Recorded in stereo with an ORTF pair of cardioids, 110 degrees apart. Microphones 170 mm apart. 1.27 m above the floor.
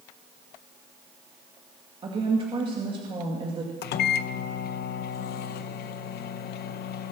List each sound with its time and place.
2.0 s a woman speaking: 30° right, 2.5 m
3.8 s a microwave: 65° left, 0.8 m